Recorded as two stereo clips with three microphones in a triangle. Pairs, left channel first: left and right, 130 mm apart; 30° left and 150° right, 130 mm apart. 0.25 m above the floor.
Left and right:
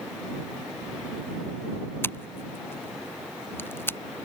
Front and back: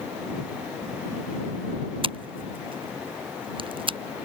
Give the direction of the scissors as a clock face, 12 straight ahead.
7 o'clock.